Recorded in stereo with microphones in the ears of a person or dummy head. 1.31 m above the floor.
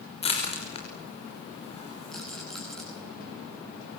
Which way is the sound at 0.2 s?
35° left (ahead or behind).